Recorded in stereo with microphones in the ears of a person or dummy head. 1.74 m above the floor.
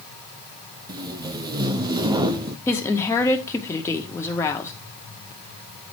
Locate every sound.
0.9 s tape being pulled: 20° right (ahead or behind), 0.7 m
2.7 s a woman speaking: 15° left (ahead or behind), 1.9 m